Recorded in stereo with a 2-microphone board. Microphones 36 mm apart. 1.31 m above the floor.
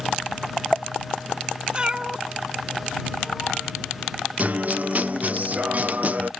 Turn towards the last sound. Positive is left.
turn(degrees=-45)  # may be behind; listen again after turning